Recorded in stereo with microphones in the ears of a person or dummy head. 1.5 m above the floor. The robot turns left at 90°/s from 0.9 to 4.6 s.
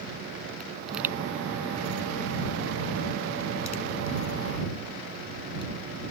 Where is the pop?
Centre (ahead or behind); by 5.7 s 25° left (ahead or behind).